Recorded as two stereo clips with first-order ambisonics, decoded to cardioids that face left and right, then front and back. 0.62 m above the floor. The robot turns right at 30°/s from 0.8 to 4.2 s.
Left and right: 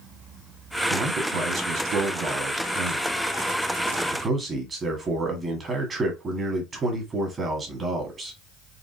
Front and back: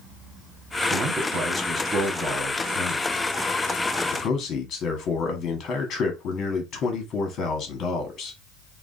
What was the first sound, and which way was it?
A man speaking, 130° right.